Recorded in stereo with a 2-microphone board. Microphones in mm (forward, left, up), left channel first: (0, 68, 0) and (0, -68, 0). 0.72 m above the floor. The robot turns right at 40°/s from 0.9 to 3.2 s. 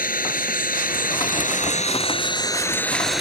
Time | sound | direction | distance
0.0 | an engine running | 90° left | ?